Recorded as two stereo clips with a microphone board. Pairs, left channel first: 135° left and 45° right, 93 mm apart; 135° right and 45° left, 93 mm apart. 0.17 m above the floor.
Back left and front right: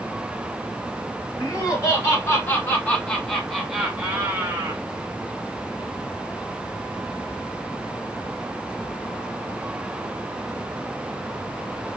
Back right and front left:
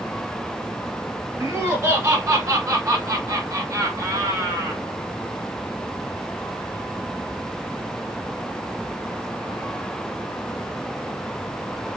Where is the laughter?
95° left, 1.7 m; by 4.8 s straight ahead, 1.3 m.